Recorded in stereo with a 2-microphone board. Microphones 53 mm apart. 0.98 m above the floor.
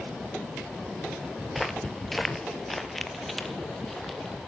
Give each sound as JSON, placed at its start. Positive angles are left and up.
{"t": 1.5, "sound": "footsteps", "side_deg": 0, "distance_m": 1.0}